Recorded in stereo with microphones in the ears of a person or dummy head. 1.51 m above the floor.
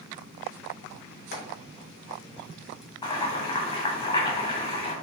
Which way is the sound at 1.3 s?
65° left (ahead or behind).